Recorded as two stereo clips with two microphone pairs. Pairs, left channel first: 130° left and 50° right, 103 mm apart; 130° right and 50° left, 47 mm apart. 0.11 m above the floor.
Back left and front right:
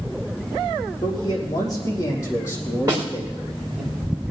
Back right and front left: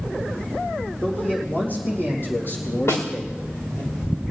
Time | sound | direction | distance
1.0 | a man speaking | 175° left | 6 m
2.9 | a snare drum | 110° right | 5 m